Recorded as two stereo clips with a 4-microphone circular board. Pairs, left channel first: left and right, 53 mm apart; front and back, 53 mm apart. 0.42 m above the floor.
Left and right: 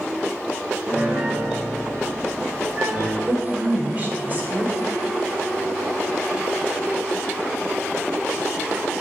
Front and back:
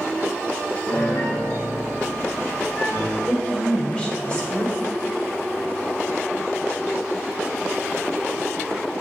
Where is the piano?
30° right, 1.8 m.